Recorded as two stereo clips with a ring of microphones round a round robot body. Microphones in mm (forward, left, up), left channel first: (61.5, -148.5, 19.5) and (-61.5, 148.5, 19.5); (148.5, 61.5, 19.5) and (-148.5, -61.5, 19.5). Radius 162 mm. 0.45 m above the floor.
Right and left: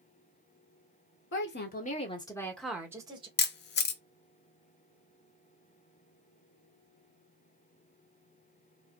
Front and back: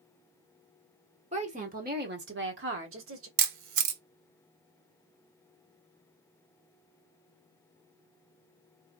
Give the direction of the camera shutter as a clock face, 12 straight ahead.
4 o'clock.